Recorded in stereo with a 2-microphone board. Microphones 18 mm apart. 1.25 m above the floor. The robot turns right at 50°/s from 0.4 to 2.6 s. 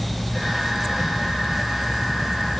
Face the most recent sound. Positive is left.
No sound to turn to.